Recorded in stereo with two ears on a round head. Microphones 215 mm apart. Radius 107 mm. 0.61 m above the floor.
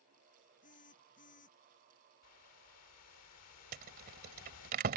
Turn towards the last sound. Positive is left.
turn(degrees=-40)  # may be behind; listen again after turning